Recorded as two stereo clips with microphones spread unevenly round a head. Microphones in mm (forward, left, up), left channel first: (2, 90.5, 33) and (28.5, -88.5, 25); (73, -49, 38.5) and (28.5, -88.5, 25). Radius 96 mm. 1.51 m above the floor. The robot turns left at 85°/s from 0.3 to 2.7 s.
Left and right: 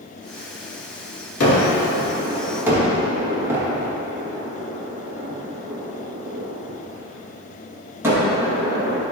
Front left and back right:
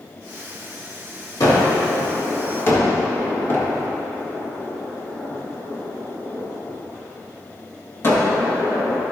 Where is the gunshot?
105° left, 2.5 m; by 9.0 s 5° right, 2.5 m.